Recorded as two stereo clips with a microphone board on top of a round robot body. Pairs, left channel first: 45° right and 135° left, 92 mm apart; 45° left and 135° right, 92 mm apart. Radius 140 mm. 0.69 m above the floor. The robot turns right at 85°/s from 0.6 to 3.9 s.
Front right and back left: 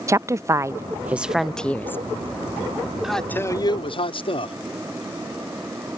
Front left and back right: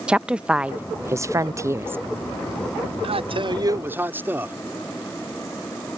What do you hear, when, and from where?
0.1 s a woman speaking: 155° left; by 2.0 s 85° right
3.0 s a man speaking: 140° right; by 4.5 s 65° right